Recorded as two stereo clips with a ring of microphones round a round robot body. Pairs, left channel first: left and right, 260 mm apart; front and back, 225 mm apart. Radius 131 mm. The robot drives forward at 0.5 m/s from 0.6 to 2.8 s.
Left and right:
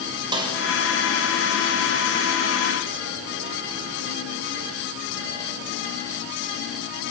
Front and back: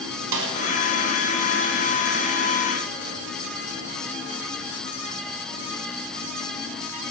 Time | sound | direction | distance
0.3 | a snare drum | 165° right | 2.5 m